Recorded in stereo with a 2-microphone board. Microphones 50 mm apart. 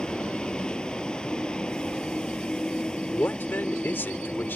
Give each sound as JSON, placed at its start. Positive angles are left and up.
{"t": 0.0, "sound": "a vehicle", "side_deg": 15}
{"t": 3.1, "sound": "a man speaking", "side_deg": 40}